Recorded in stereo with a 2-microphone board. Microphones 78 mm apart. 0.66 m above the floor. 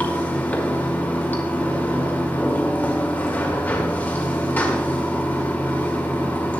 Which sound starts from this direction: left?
Running water, at 0.0 s.